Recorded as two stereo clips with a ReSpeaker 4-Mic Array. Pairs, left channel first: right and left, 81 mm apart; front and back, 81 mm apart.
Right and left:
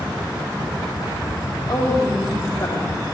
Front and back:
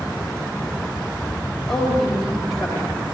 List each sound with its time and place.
1.7 s a woman speaking: 85° right, 4 m; by 2.9 s 95° right, 3.5 m